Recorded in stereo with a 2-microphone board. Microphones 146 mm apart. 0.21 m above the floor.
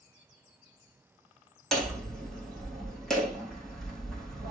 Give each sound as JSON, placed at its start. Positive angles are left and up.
{"t": 1.7, "sound": "hammering", "side_deg": 5, "distance_m": 4.0}